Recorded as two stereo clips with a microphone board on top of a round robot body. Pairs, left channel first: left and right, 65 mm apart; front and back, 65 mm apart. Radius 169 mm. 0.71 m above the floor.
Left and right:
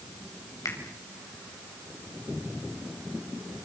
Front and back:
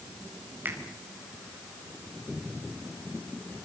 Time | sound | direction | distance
0.7 | a finger snap | 125° left | 5 m